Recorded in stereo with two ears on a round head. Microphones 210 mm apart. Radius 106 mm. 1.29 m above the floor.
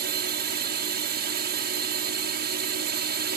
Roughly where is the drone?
Right.